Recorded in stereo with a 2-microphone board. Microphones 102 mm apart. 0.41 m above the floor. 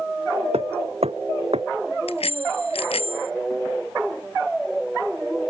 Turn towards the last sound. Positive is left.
turn(degrees=75)  # may be behind; listen again after turning